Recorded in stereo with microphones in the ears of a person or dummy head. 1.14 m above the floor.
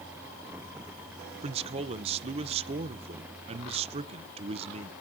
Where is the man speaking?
35° right (ahead or behind), 1.0 m.